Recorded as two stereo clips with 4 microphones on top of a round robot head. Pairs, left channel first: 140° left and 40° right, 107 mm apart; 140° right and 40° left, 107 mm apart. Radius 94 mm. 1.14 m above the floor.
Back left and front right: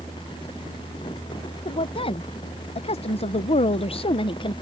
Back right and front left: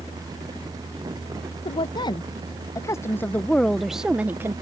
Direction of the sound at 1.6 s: Straight behind.